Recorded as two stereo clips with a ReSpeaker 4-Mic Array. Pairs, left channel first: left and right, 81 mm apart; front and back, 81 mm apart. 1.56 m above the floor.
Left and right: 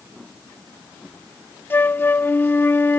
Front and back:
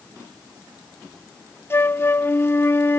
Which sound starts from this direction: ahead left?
A flute, at 1.7 s.